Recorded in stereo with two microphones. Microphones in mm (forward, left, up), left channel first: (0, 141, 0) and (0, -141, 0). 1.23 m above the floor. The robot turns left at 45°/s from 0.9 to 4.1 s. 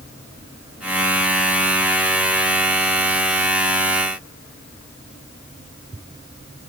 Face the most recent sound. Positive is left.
No sound to turn to.